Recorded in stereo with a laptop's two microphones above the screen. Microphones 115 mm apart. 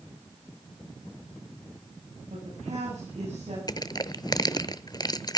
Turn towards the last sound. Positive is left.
turn(degrees=35)  # may be behind; listen again after turning